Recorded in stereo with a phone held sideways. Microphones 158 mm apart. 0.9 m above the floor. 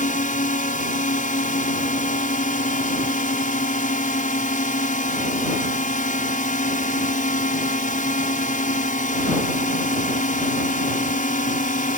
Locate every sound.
0.0 s a drone: 55° left (ahead or behind)